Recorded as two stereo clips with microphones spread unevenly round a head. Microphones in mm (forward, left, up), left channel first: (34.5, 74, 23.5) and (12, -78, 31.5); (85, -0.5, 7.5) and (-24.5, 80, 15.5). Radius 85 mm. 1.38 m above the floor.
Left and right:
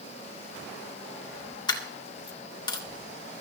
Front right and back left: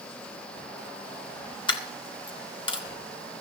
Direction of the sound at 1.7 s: 20° left.